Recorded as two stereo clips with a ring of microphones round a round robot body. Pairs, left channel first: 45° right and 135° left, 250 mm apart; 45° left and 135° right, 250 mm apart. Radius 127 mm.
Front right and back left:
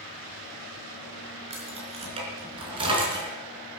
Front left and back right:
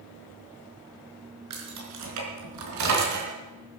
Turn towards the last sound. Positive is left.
turn(degrees=-150)